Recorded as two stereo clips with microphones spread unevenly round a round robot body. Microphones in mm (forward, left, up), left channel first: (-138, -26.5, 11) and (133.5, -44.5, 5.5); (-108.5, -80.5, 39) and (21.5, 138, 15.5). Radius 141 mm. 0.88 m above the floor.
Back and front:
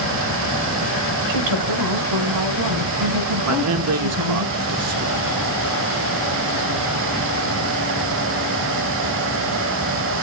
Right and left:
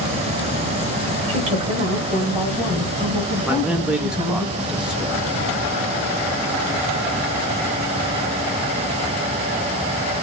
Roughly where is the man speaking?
Ahead right.